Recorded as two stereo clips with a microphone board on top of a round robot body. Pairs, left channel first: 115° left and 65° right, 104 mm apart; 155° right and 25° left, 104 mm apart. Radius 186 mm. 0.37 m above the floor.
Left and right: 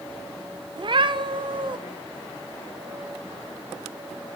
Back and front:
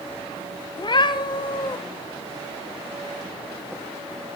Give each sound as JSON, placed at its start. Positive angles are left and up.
{"t": 0.8, "sound": "a cat meowing", "azimuth_deg": -110, "distance_m": 0.8}